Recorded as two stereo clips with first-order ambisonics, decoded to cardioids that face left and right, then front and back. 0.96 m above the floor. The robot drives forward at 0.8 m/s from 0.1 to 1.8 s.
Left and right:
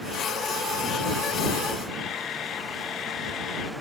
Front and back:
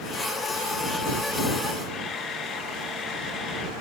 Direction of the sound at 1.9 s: 55° left.